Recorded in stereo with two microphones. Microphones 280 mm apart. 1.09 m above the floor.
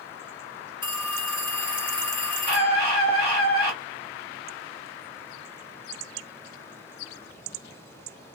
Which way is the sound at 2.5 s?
35° left (ahead or behind).